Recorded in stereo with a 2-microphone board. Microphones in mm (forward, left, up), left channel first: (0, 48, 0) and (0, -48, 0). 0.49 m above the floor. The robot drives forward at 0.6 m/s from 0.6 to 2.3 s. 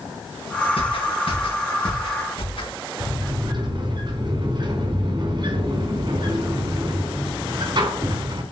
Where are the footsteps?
75° left (ahead or behind), 6.5 m; by 2.7 s 70° left (ahead or behind), 8 m.